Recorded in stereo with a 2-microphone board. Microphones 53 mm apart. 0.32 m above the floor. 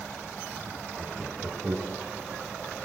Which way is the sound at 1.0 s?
50° right (ahead or behind).